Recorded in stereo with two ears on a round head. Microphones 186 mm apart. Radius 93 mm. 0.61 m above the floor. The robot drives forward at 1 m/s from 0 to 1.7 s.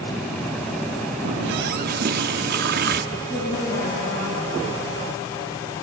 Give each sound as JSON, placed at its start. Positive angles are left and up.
{"t": 1.2, "sound": "a running tap", "side_deg": -55, "distance_m": 0.5}
{"t": 3.1, "sound": "a woman speaking", "side_deg": 80, "distance_m": 9.5}